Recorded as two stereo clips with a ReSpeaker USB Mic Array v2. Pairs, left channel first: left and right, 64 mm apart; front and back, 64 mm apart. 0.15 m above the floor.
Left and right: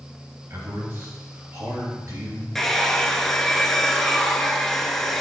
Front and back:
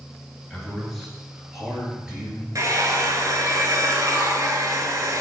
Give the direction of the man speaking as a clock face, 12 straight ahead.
3 o'clock.